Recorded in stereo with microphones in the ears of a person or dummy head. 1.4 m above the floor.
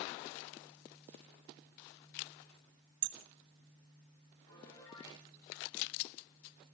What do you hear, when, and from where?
3.0 s hammering: 60° right (ahead or behind), 1.1 m
4.5 s a piano: 20° left (ahead or behind), 6 m